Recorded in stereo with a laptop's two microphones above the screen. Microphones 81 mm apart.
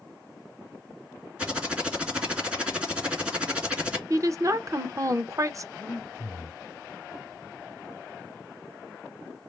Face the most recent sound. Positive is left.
turn(degrees=20)  # may be behind; listen again after turning